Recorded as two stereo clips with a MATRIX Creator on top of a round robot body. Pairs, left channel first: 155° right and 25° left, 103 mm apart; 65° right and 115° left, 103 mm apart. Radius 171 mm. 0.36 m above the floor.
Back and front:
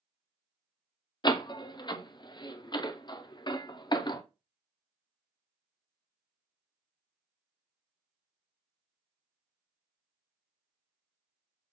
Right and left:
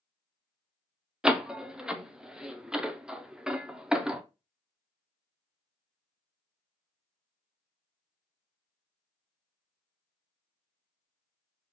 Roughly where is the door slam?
Behind.